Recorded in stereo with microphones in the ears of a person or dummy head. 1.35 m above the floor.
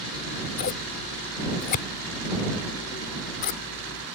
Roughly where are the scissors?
Left.